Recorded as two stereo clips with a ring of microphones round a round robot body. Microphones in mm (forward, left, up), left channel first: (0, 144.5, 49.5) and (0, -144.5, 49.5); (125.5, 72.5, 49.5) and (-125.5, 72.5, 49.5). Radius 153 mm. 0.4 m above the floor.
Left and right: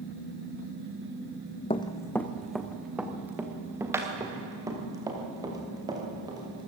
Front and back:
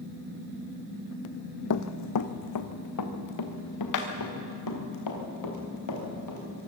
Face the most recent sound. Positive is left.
turn(degrees=-15)